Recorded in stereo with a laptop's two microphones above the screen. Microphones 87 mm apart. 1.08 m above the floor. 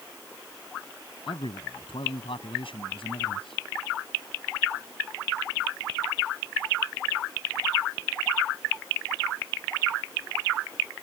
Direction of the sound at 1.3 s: 85° left.